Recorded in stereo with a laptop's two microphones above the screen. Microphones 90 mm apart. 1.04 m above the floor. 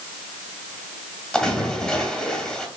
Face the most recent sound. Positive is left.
turn(degrees=5)  # may be behind; listen again after turning